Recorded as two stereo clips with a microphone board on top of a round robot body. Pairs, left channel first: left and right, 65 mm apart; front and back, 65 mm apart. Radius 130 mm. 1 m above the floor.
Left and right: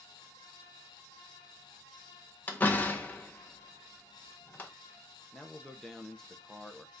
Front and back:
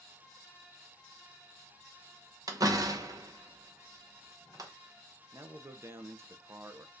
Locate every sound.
2.5 s a door slam: 150° left, 0.9 m
5.3 s a man speaking: 170° left, 0.7 m